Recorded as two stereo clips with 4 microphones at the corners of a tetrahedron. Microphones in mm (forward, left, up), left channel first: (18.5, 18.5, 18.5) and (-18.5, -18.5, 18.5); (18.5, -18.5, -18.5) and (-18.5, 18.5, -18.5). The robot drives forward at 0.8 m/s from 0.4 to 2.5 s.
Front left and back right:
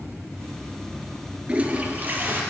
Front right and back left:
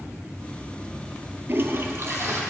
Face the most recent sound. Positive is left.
turn(degrees=175)